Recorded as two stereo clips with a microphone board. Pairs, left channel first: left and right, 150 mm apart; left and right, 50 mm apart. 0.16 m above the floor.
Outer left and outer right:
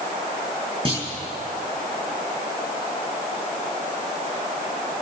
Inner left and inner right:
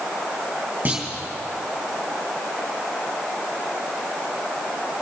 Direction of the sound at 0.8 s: 35° right (ahead or behind).